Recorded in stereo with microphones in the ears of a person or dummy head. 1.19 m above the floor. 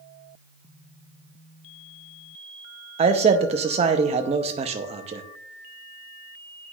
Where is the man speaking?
30° right (ahead or behind), 0.6 m.